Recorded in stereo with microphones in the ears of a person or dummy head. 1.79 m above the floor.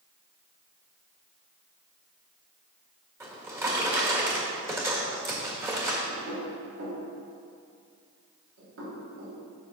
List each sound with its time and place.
3.2 s a drawer: 15° right (ahead or behind), 1.7 m
6.1 s knocking: 70° right (ahead or behind), 3 m